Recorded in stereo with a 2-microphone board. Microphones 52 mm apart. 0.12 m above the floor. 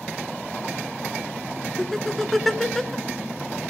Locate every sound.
1.8 s laughter: 5° left (ahead or behind), 1.1 m